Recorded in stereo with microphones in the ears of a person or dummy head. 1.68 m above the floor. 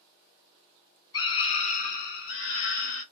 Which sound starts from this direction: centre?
A scream, at 1.1 s.